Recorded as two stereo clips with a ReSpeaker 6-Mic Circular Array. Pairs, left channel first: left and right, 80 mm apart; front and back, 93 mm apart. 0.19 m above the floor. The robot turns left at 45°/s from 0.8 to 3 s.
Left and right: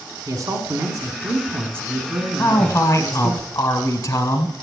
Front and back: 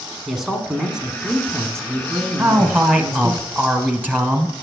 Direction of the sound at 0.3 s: 95° right.